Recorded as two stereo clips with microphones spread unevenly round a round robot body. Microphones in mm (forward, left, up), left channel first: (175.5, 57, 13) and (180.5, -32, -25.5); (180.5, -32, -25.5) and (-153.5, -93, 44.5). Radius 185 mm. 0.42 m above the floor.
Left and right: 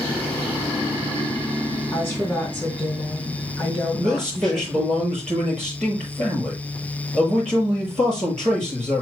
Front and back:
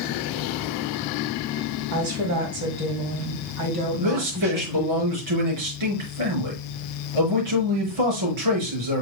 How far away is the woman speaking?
About 2.5 m.